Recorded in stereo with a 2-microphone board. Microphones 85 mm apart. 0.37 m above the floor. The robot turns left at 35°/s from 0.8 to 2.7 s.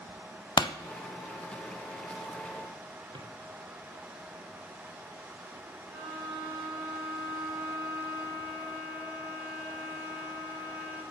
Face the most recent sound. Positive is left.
turn(degrees=-15)  # may be behind; listen again after turning